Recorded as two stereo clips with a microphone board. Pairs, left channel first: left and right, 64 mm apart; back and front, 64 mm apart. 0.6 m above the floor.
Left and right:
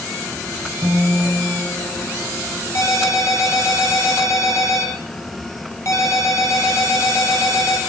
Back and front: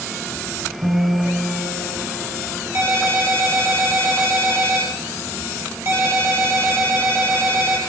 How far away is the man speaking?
I don't hear a man speaking.